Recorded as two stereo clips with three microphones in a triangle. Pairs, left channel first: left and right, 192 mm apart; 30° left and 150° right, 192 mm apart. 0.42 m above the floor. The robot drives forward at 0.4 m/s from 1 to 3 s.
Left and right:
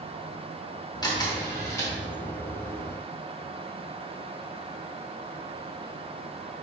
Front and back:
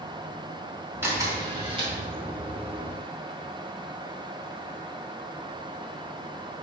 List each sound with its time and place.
1.0 s a camera shutter: 145° left, 0.7 m; by 1.9 s 160° left, 0.9 m